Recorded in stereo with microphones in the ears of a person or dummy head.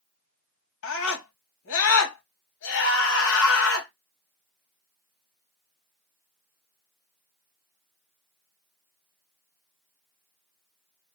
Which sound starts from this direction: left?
A scream, at 0.8 s.